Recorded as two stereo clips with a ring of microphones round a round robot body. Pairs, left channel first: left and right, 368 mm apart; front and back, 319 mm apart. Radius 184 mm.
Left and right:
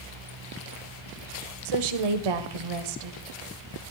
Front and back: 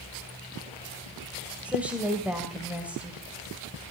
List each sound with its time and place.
1.6 s a woman speaking: 95° right, 2.0 m